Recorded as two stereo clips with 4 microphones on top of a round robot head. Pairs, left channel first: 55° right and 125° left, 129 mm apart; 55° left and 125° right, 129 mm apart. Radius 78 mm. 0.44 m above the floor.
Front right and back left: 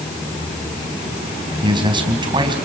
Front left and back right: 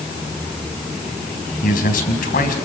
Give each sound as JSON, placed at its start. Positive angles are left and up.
{"t": 1.6, "sound": "a man speaking", "azimuth_deg": 70, "distance_m": 4.0}